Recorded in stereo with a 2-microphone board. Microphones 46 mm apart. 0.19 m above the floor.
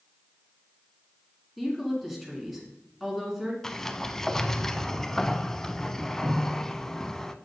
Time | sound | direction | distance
1.6 | a woman speaking | centre (ahead or behind) | 2.5 m
3.6 | a sliding door | 10° left (ahead or behind) | 0.5 m